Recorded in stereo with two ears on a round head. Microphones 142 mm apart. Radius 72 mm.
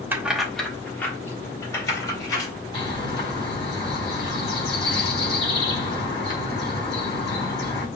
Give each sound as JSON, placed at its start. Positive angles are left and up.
{"t": 0.1, "sound": "keys jangling", "side_deg": -15, "distance_m": 0.8}
{"t": 2.7, "sound": "a bird", "side_deg": 30, "distance_m": 4.0}